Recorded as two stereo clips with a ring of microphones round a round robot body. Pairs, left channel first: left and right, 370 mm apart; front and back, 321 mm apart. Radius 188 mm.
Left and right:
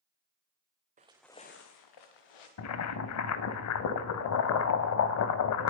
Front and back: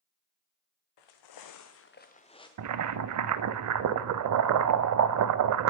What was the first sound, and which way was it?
Footsteps, 20° right.